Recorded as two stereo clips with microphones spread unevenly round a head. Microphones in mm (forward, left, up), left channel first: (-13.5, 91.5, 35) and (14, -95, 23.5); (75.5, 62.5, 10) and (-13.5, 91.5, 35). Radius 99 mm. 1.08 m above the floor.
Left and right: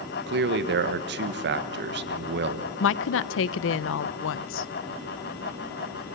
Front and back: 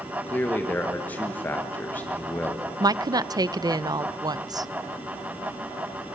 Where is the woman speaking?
105° left, 0.5 m.